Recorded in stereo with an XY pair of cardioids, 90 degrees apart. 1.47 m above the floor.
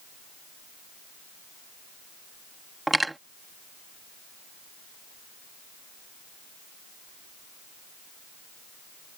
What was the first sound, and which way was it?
Cutlery clinking, 15° right.